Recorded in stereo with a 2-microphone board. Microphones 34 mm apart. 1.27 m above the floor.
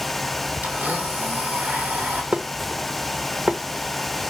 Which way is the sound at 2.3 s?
40° right (ahead or behind).